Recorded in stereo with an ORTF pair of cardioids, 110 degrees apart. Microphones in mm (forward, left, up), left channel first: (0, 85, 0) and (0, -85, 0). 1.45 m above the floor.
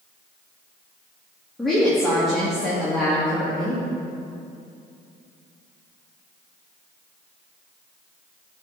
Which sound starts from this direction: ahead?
A woman speaking, at 1.6 s.